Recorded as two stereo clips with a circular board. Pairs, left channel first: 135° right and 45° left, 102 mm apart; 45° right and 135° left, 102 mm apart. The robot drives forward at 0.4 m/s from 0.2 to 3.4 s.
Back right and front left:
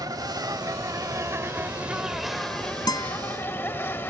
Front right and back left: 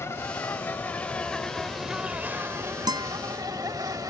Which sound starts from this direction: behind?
A guitar, at 2.9 s.